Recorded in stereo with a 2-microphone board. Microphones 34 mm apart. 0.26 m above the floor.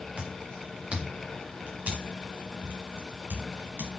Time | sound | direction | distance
0.2 | footsteps | 30° right (ahead or behind) | 3 m